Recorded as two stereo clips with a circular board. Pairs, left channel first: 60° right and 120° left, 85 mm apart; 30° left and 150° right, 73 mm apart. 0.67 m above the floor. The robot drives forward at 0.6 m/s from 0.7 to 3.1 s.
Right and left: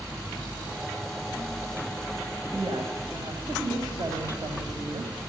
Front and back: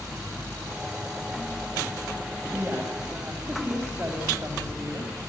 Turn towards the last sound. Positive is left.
turn(degrees=150)